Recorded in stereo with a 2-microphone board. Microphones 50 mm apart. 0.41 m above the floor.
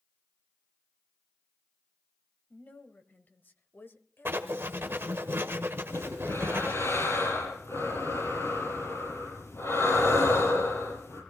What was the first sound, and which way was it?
A woman speaking, 35° left (ahead or behind).